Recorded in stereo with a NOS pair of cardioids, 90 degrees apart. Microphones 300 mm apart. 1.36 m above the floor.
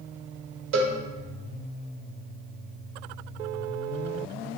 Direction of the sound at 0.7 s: 45° right.